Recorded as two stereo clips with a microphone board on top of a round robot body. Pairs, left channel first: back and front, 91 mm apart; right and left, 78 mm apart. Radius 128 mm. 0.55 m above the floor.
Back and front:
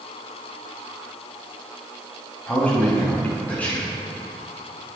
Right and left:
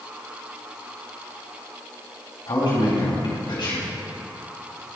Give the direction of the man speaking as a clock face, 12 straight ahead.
4 o'clock.